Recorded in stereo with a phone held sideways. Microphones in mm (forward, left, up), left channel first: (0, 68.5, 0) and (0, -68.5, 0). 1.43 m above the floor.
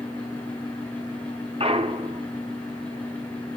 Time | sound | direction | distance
0.0 | a fan | 10° left (ahead or behind) | 9 m
1.6 | a clunk | 45° right (ahead or behind) | 1.6 m